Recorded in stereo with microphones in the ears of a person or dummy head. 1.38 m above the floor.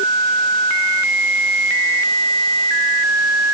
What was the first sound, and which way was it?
Only background noise.